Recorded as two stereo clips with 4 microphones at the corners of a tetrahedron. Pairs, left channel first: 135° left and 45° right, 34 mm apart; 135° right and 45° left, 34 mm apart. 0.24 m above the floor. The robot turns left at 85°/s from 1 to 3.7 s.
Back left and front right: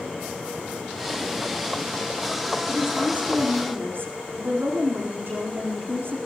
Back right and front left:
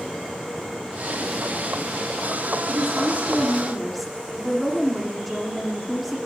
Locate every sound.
2.7 s a woman speaking: 40° left, 9.5 m; by 6.2 s 45° right, 9.5 m